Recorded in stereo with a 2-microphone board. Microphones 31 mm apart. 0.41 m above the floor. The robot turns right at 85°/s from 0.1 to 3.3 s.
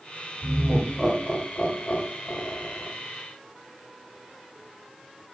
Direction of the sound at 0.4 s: 40° right (ahead or behind).